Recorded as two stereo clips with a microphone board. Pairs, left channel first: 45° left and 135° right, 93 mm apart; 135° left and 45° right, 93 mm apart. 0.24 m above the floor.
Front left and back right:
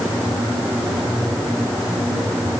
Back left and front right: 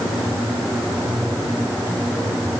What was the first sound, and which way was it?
Only background noise.